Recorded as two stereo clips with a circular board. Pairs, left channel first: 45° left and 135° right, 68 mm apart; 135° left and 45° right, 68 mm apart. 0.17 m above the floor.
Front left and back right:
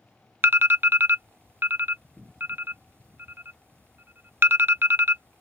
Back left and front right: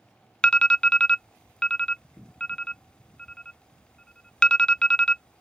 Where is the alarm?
155° right.